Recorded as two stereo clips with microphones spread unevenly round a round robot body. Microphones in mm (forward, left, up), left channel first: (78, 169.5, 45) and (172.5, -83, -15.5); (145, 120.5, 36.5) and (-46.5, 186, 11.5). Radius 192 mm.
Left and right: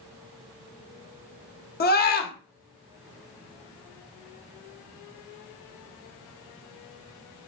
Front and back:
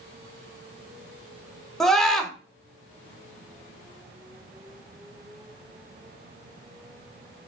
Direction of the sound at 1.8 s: 85° left.